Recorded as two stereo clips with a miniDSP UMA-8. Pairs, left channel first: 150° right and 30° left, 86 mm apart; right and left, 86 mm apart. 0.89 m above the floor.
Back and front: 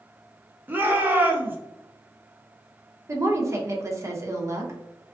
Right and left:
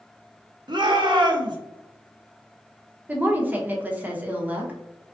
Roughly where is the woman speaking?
Ahead left.